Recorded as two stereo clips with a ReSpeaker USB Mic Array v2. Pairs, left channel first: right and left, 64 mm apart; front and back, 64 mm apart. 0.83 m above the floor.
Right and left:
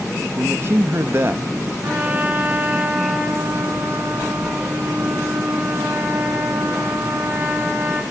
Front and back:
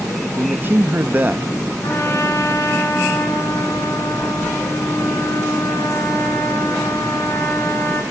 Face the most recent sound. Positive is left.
turn(degrees=30)